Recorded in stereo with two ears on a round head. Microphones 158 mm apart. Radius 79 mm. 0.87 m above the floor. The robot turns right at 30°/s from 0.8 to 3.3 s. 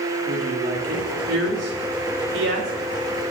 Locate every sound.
0.2 s a woman speaking: 50° right (ahead or behind), 2.5 m; by 2.7 s 65° right (ahead or behind), 2.5 m